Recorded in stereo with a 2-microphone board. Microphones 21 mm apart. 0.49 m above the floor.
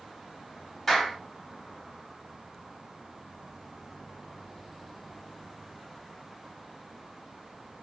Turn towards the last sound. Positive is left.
turn(degrees=10)  # may be behind; listen again after turning